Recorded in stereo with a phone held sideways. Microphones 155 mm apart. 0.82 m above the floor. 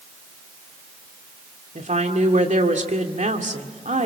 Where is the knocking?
No knocking in this recording.